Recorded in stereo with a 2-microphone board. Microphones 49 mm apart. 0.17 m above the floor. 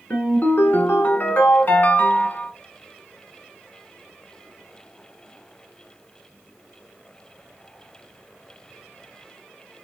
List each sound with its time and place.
0.1 s a ringtone: 40° left (ahead or behind), 1.0 m